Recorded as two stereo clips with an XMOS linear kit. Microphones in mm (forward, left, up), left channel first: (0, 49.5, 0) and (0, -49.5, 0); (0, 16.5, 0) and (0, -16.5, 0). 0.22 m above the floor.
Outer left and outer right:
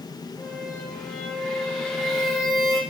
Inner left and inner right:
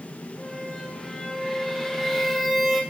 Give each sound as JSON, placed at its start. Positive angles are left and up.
{"t": 0.4, "sound": "a squeak", "side_deg": 0, "distance_m": 4.5}